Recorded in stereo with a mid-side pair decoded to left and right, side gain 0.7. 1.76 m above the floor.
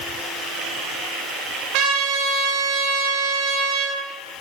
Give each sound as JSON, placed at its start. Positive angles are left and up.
{"t": 1.7, "sound": "a trumpet", "azimuth_deg": -65, "distance_m": 2.5}